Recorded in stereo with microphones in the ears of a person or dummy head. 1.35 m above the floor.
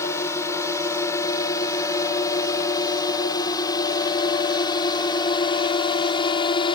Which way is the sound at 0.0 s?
20° left (ahead or behind).